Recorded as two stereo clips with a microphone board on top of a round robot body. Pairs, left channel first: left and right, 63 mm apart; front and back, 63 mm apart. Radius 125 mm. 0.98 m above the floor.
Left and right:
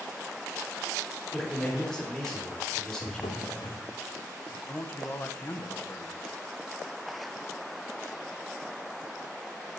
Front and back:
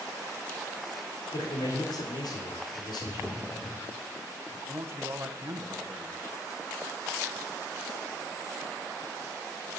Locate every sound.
1.3 s a man speaking: 10° left, 3.5 m
3.0 s a drawer: 75° left, 0.9 m
4.7 s a man speaking: 140° left, 1.4 m